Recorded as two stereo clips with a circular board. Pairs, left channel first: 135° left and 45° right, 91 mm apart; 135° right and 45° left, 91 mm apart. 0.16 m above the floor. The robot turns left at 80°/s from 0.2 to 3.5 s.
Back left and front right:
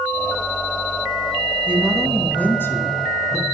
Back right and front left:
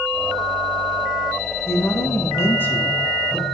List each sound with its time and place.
1.7 s a woman speaking: 105° right, 1.2 m; by 3.4 s 110° left, 1.2 m